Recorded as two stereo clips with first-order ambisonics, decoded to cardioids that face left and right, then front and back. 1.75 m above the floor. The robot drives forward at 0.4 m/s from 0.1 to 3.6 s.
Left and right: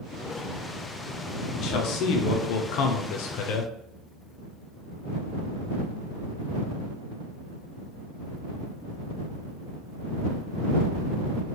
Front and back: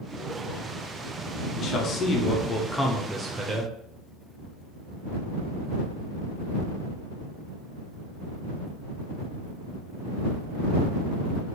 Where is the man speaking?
50° left, 0.9 m; by 3.7 s 115° left, 0.7 m.